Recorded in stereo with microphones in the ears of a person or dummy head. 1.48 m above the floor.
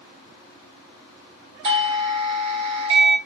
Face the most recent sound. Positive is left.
turn(degrees=-35)  # may be behind; listen again after turning